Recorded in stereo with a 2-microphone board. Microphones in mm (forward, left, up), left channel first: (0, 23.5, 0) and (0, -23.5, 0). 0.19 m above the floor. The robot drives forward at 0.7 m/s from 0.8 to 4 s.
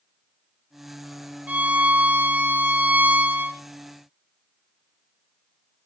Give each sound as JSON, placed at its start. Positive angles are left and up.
{"t": 1.5, "sound": "a violin", "side_deg": -35, "distance_m": 1.7}